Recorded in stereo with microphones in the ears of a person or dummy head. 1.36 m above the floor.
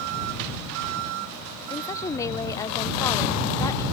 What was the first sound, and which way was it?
A woman speaking, 25° left (ahead or behind).